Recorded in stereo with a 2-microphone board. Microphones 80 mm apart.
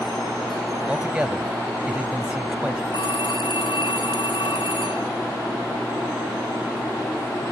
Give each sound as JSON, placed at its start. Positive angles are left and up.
{"t": 0.9, "sound": "a man speaking", "side_deg": -15}
{"t": 2.9, "sound": "a phone ringing", "side_deg": 85}